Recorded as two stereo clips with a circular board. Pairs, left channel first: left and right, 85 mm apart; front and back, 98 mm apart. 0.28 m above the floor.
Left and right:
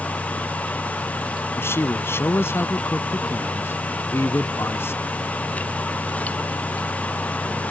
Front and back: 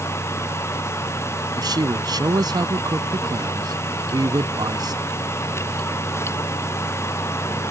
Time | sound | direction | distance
1.6 | a man speaking | 145° left | ?